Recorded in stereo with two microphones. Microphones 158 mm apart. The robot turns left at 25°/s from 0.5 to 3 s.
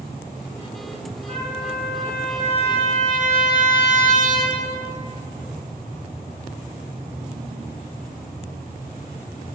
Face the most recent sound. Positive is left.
turn(degrees=30)